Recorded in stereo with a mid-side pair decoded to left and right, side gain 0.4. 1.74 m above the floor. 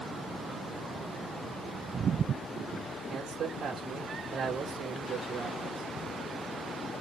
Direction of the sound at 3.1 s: 70° right.